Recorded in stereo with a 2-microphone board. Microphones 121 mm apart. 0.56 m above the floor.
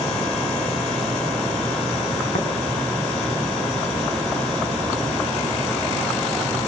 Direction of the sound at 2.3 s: 65° left (ahead or behind).